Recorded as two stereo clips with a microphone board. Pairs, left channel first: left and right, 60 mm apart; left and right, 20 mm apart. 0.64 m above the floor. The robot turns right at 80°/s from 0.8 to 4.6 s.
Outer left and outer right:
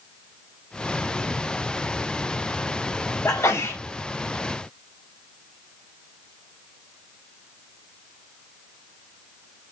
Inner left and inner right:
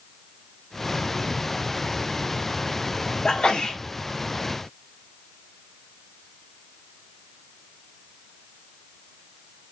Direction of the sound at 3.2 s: 80° left.